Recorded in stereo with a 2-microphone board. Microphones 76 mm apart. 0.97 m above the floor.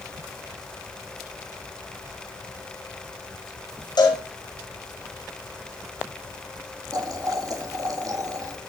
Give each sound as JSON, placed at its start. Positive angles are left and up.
{"t": 4.0, "sound": "a cowbell", "side_deg": 65, "distance_m": 6.0}
{"t": 6.9, "sound": "boiling", "side_deg": -50, "distance_m": 1.9}